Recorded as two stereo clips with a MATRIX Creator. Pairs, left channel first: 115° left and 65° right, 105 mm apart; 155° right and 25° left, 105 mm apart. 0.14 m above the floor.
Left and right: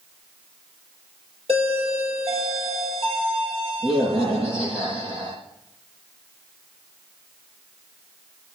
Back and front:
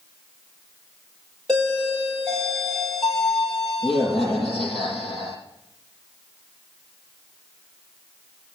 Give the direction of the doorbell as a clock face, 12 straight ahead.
2 o'clock.